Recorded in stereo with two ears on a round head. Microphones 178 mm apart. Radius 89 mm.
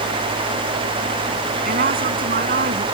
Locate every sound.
1.6 s a woman speaking: 50° right (ahead or behind)